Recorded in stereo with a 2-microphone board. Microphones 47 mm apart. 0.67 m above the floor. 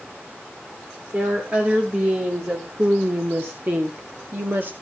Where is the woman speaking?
40° right (ahead or behind), 2.5 m; by 4.7 s 45° right (ahead or behind), 1.4 m.